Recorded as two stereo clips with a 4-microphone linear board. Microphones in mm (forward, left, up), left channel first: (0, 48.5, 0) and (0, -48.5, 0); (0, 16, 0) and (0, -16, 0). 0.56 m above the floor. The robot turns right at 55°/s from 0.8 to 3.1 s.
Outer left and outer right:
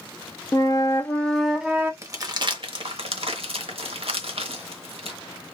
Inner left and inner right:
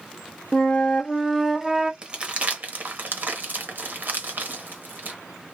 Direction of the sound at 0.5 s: 145° left.